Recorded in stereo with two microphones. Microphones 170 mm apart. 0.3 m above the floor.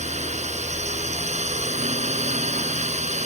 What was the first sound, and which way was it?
A drone, 40° right (ahead or behind).